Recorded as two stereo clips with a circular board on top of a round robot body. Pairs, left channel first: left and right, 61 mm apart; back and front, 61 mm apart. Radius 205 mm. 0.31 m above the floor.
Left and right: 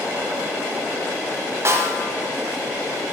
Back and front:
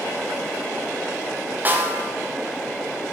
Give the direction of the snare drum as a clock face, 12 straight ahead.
2 o'clock.